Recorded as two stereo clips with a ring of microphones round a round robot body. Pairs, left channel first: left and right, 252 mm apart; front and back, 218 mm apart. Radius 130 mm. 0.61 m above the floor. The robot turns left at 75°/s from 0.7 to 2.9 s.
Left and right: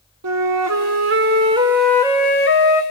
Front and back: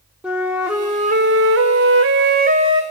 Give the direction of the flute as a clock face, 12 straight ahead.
3 o'clock.